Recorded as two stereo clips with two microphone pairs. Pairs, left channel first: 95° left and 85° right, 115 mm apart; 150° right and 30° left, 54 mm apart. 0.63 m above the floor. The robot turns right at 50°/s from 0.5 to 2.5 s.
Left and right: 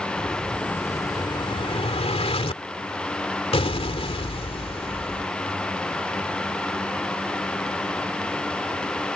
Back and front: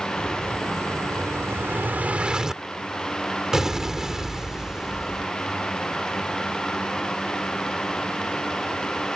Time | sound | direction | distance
0.2 | an explosion | 15° left | ?